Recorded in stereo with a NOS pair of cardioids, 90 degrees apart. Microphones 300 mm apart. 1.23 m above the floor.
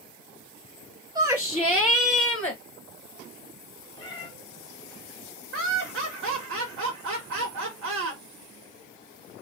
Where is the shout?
15° right, 0.6 m; by 2.6 s 15° left, 1.2 m.